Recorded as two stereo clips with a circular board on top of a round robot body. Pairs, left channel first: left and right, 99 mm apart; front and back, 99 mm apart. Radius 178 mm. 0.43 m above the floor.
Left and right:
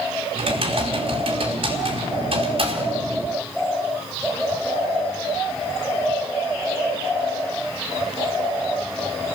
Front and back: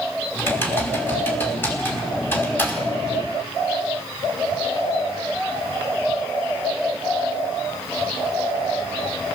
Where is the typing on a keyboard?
70° right, 5 m.